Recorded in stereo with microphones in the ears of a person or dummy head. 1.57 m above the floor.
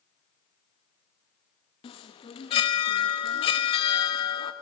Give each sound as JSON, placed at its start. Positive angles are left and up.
{"t": 1.8, "sound": "a chime", "side_deg": 30, "distance_m": 1.1}